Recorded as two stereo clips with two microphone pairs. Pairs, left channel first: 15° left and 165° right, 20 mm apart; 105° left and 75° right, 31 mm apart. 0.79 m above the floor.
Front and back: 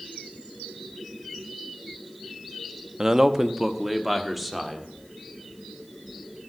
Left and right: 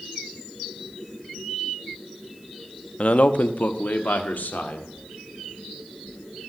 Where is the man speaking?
140° left, 0.8 m; by 4.9 s 100° left, 2.0 m.